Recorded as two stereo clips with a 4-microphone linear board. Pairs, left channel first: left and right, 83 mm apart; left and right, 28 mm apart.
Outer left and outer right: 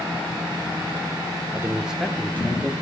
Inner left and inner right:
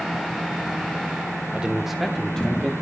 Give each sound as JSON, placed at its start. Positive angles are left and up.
{"t": 1.5, "sound": "a man speaking", "side_deg": -35, "distance_m": 1.0}